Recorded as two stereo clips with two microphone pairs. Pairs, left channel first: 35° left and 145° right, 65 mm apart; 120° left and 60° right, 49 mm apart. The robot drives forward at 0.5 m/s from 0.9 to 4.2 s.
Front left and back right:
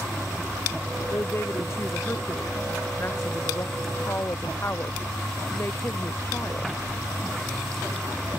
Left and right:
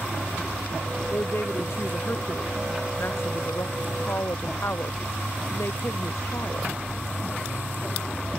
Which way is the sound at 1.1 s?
80° left.